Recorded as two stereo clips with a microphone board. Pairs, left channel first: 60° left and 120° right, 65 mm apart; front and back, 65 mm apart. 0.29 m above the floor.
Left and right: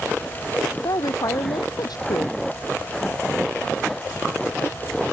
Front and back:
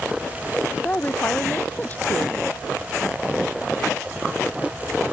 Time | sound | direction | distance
0.8 | a woman speaking | 65° left | ?